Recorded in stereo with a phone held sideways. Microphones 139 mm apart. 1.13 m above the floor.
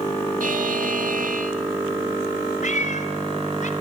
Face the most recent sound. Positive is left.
turn(degrees=60)  # may be behind; listen again after turning